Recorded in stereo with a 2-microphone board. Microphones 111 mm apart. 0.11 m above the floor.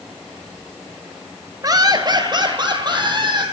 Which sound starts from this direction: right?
Laughter, at 1.6 s.